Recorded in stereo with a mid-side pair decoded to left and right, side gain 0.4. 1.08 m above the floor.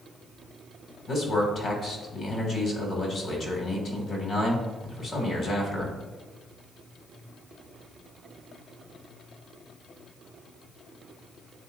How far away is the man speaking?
About 2.5 m.